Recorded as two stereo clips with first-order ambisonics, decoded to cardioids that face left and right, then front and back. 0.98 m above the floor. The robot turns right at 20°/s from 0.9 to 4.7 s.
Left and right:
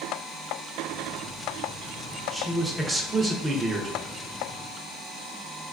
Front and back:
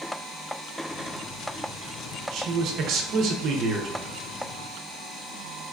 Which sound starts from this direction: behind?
A man speaking, at 2.3 s.